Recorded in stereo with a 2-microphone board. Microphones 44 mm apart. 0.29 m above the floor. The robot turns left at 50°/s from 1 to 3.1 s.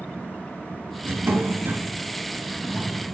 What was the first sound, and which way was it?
A drawer, 95° right.